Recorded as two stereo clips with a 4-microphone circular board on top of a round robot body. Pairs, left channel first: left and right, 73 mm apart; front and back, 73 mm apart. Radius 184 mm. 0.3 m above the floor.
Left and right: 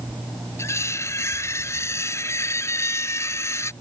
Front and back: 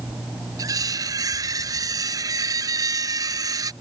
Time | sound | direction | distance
0.6 | cutlery clinking | 140° left | ?